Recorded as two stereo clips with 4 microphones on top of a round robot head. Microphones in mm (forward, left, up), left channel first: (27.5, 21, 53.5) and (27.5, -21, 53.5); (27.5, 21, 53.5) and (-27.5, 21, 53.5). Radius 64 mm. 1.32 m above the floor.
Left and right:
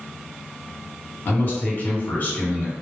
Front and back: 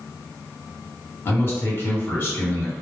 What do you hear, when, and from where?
1.2 s a man speaking: 45° left, 1.4 m